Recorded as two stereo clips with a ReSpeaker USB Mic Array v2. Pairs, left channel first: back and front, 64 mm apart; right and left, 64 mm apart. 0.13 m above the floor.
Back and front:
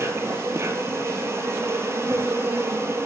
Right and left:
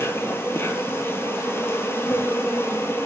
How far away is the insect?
About 0.8 m.